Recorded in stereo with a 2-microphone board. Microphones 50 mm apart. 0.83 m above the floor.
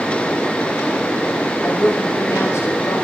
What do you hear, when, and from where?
1.6 s a woman speaking: 75° left (ahead or behind), 6.5 m; by 3.0 s 80° left, 5 m